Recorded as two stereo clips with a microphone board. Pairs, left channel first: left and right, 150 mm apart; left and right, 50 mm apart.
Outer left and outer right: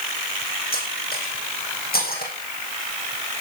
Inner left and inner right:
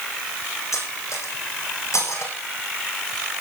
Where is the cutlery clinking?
75° left (ahead or behind), 4.5 m.